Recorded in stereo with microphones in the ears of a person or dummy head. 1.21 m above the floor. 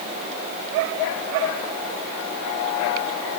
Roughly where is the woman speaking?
No woman speaking in this recording.